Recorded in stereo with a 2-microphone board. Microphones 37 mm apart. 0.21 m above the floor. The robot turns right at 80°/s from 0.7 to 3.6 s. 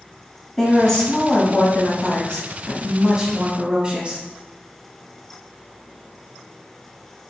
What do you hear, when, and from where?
0.6 s a woman speaking: 10° left, 1.2 m; by 4.2 s 115° right, 1.2 m